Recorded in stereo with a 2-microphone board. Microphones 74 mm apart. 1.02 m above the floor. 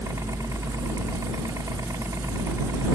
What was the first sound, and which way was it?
A helicopter, 45° right (ahead or behind).